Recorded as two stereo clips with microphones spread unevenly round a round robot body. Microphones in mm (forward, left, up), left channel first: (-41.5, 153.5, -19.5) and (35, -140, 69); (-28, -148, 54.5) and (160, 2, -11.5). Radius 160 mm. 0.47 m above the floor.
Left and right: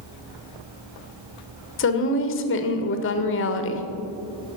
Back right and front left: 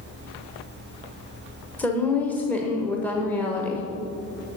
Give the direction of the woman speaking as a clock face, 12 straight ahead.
8 o'clock.